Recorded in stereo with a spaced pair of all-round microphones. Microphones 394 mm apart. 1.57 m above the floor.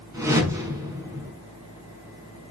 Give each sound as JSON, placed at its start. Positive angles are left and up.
{"t": 0.1, "sound": "a whoosh", "side_deg": -10, "distance_m": 5.0}